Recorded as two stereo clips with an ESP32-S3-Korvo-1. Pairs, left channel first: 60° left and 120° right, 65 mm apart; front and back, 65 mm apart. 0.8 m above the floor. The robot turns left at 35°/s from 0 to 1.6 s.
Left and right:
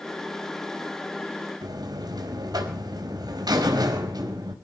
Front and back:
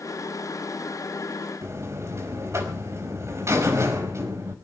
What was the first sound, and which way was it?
A buzzer, 135° right.